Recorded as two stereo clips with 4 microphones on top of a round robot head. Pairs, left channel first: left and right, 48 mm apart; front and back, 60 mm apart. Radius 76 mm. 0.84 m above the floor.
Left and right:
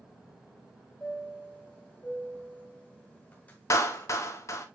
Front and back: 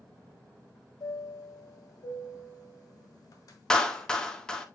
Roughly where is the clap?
Left.